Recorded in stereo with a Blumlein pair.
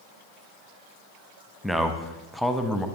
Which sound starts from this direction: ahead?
A man speaking, at 1.6 s.